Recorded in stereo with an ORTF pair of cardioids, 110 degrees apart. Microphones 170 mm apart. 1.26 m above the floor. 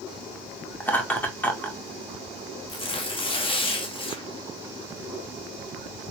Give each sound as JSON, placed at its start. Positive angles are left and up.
{"t": 0.8, "sound": "laughter", "azimuth_deg": 10, "distance_m": 1.8}
{"t": 2.7, "sound": "tearing paper", "azimuth_deg": 30, "distance_m": 1.7}